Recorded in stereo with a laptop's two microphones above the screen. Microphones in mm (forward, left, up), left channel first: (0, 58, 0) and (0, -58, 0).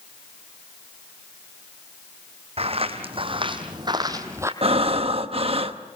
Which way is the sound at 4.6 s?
55° right (ahead or behind).